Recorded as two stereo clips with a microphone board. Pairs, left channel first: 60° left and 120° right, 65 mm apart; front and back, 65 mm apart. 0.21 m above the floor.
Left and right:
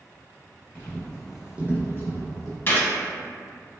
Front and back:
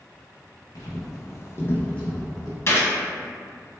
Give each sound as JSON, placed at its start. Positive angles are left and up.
{"t": 0.8, "sound": "footsteps", "azimuth_deg": -5, "distance_m": 0.8}
{"t": 2.7, "sound": "a gunshot", "azimuth_deg": 20, "distance_m": 0.5}